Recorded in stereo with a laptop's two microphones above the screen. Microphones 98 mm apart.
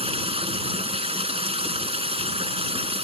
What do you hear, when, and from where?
0.0 s running water: 70° right (ahead or behind)